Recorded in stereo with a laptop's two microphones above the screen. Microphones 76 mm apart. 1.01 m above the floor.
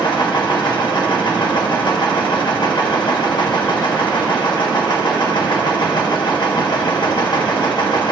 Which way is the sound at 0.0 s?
65° left (ahead or behind).